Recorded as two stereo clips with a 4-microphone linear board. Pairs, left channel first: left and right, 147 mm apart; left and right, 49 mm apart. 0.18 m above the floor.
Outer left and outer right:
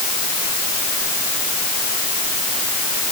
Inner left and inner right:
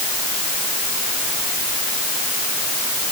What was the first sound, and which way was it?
Only background noise.